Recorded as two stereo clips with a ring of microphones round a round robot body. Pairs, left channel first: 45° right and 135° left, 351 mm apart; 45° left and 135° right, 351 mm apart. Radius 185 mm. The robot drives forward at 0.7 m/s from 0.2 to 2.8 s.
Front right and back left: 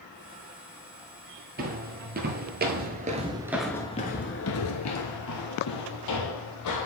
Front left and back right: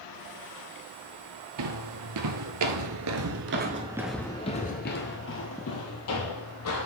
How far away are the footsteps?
About 1.0 m.